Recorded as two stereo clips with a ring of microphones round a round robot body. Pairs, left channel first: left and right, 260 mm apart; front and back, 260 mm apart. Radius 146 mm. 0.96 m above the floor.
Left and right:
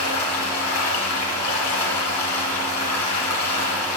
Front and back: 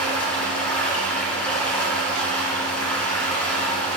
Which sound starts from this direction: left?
Running water, at 0.0 s.